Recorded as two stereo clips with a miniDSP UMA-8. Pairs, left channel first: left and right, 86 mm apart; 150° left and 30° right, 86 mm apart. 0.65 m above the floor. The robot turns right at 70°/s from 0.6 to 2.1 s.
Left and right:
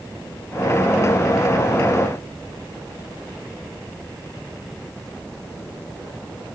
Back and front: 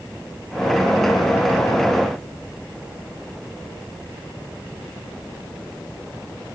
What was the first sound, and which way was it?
Only background noise.